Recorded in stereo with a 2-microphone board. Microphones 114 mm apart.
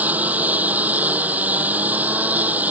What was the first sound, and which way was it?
A lawn mower, 15° right (ahead or behind).